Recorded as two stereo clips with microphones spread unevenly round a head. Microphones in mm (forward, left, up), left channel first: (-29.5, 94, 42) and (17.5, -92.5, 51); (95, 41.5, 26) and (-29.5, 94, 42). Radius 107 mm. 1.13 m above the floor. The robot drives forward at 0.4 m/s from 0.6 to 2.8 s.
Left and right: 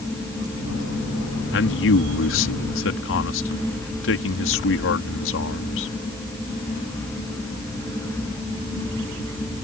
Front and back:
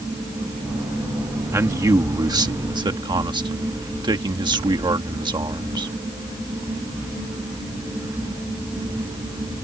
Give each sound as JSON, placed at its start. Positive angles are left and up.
{"t": 1.5, "sound": "a man speaking", "azimuth_deg": 90}